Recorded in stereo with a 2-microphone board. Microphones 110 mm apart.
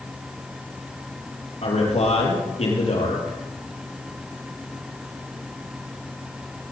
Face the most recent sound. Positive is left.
turn(degrees=70)  # may be behind; listen again after turning